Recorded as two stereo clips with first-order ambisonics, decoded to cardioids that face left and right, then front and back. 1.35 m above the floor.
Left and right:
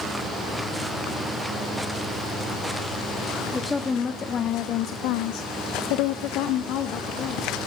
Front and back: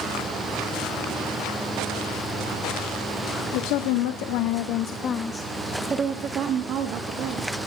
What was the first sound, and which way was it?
A woman speaking, 10° left.